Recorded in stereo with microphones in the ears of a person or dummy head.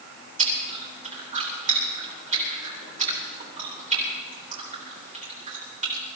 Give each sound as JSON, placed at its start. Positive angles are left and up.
{"t": 0.4, "sound": "chewing", "side_deg": -40, "distance_m": 3.5}